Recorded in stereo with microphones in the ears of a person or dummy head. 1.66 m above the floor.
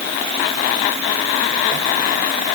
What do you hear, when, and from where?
Only background noise.